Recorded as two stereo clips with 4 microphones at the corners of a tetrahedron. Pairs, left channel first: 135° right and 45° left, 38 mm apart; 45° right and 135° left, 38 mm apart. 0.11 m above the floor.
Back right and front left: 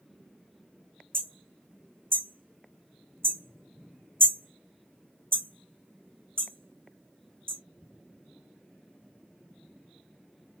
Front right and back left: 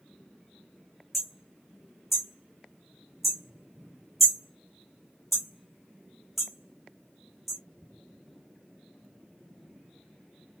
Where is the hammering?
45° left, 1.9 m.